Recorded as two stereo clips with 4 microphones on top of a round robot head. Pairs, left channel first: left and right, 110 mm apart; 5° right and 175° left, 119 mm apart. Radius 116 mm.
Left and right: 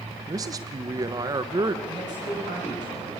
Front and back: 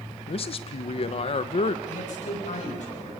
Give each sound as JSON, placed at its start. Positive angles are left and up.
{"t": 0.3, "sound": "a man speaking", "azimuth_deg": -35, "distance_m": 1.1}
{"t": 1.9, "sound": "a man speaking", "azimuth_deg": -30, "distance_m": 7.0}